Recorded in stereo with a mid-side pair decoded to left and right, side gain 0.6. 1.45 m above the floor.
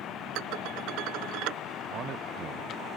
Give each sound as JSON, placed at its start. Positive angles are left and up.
{"t": 0.3, "sound": "dishes clattering", "azimuth_deg": -70}
{"t": 1.9, "sound": "a man speaking", "azimuth_deg": -55}